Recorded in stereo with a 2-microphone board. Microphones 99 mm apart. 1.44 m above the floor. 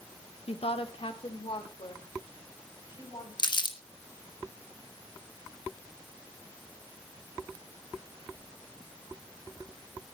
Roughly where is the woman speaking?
Left.